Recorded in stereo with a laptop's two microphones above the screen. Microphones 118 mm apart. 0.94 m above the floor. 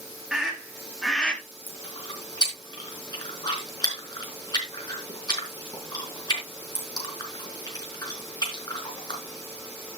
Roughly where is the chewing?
Left.